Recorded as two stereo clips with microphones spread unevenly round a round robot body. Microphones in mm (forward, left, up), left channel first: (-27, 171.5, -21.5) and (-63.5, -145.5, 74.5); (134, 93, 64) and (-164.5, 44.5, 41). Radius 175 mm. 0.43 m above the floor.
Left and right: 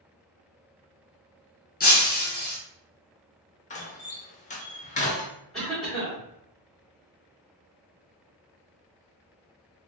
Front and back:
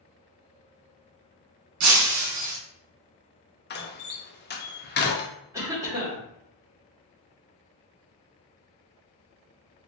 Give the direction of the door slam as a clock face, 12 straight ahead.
10 o'clock.